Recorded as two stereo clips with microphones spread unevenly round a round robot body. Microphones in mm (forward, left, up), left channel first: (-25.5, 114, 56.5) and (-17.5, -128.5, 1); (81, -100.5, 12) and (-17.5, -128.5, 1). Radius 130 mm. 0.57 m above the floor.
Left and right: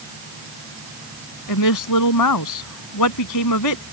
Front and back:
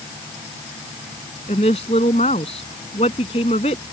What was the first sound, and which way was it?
A woman speaking, 70° left.